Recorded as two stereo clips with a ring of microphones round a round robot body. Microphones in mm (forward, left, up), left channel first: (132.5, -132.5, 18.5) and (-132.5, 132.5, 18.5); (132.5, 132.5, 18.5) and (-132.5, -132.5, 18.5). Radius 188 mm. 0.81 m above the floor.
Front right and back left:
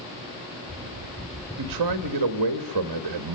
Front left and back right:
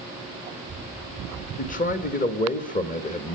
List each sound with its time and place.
1.6 s a man speaking: 110° left, 1.6 m